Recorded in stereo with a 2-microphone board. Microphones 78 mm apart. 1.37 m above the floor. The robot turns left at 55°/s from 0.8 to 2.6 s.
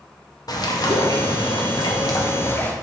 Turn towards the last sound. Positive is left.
turn(degrees=25)